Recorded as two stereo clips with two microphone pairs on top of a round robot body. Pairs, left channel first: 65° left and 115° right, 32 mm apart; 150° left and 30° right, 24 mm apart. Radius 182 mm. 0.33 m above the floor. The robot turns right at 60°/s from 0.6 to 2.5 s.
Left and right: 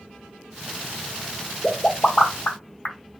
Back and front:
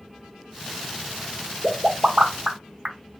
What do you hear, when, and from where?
1.6 s a pop: 10° right, 1.4 m; by 3.0 s 40° left, 1.4 m